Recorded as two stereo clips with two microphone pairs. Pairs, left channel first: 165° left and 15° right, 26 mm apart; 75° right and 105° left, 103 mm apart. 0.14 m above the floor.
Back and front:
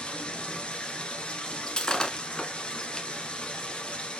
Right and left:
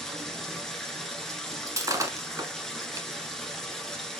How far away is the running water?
About 1.4 m.